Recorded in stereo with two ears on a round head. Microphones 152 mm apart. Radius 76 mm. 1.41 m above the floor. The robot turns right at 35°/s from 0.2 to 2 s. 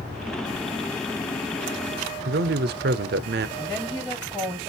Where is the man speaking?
65° right (ahead or behind), 0.6 m.